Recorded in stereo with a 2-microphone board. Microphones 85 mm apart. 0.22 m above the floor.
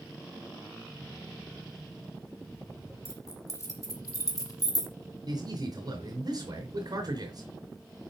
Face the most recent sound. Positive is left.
turn(degrees=-55)  # may be behind; listen again after turning